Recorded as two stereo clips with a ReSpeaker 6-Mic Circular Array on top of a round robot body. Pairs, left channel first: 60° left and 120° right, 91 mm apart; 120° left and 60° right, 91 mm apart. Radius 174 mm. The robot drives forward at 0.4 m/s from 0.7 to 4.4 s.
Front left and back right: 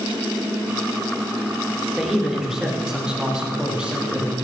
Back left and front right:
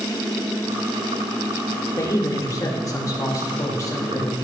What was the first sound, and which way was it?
A man speaking, 155° left.